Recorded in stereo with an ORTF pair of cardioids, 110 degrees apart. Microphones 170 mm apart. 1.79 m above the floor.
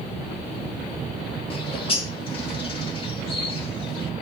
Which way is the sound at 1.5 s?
30° left.